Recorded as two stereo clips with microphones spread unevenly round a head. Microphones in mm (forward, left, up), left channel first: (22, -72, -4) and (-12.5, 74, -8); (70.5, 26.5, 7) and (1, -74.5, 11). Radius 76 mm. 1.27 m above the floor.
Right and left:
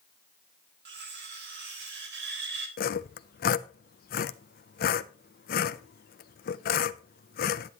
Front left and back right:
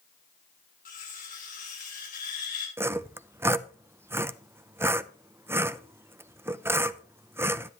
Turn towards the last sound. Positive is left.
turn(degrees=-55)